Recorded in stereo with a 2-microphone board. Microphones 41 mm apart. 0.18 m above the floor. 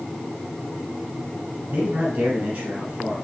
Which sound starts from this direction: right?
A man speaking, at 1.7 s.